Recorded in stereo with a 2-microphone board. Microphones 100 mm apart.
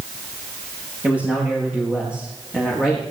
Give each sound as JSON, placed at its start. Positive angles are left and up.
{"t": 1.0, "sound": "a man speaking", "side_deg": -15, "distance_m": 9.0}